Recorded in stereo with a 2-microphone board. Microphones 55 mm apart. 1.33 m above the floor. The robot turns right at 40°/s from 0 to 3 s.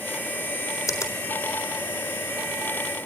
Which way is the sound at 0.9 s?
70° left (ahead or behind).